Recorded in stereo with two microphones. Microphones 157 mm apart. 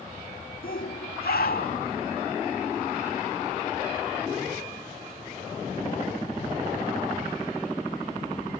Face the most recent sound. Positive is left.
turn(degrees=80)